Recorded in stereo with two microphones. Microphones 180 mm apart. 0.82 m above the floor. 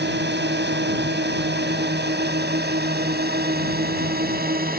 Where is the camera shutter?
I don't hear a camera shutter.